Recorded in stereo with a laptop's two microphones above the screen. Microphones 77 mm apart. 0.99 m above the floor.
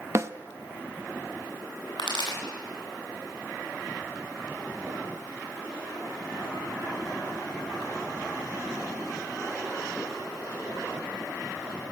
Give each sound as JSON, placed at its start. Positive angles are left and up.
{"t": 0.1, "sound": "a snare drum", "side_deg": -40, "distance_m": 0.7}
{"t": 2.0, "sound": "a pop", "side_deg": 75, "distance_m": 10.0}